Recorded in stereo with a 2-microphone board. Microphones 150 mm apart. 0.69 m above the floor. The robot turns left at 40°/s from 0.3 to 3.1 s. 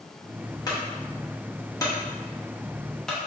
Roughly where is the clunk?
Left.